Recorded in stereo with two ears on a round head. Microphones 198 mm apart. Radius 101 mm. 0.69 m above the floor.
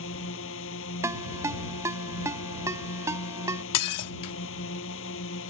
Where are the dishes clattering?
75° left (ahead or behind).